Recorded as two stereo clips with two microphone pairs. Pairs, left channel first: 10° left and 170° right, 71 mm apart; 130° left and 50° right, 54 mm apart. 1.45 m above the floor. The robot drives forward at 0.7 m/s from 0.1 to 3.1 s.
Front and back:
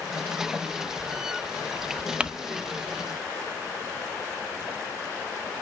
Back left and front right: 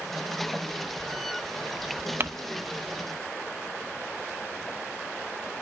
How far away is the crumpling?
About 0.6 m.